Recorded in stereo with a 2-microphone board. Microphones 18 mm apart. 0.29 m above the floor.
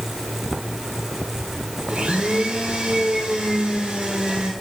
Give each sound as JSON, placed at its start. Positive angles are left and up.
{"t": 1.9, "sound": "a blender", "side_deg": -75, "distance_m": 2.5}